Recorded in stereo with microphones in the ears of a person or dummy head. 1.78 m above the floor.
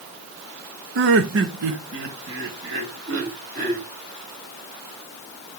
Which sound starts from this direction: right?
Laughter, at 0.9 s.